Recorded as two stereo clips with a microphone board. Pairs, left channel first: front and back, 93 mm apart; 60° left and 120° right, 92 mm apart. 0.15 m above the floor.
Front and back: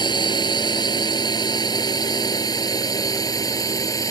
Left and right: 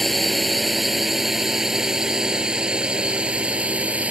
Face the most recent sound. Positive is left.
turn(degrees=-45)